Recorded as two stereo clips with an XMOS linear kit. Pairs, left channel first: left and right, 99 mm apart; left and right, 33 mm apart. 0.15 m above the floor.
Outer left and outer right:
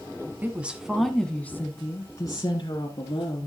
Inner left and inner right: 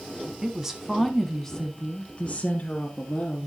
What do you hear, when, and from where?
0.4 s a woman speaking: 20° right (ahead or behind), 1.0 m; by 3.5 s 55° left (ahead or behind), 1.8 m